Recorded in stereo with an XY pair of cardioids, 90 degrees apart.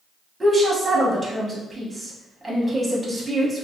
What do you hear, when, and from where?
0.4 s a woman speaking: 25° right, 1.1 m